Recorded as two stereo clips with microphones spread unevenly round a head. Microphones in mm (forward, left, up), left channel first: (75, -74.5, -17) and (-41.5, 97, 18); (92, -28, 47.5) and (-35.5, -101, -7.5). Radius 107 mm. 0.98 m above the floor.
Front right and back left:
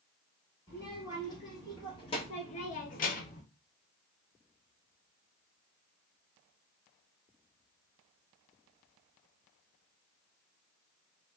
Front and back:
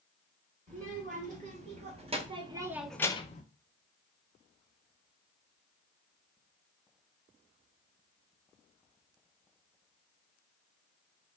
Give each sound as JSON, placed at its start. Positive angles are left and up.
{"t": 0.7, "sound": "a child speaking", "azimuth_deg": -130, "distance_m": 1.8}